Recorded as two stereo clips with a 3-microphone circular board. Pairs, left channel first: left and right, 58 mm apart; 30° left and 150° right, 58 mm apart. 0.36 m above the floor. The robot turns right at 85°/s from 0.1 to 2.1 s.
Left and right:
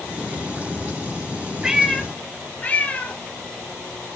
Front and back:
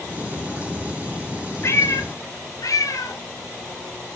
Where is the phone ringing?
No phone ringing in this recording.